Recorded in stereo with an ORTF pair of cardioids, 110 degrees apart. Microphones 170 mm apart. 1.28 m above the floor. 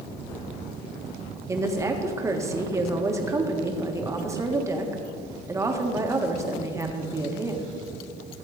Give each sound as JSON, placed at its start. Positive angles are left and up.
{"t": 1.5, "sound": "a woman speaking", "azimuth_deg": -15, "distance_m": 1.5}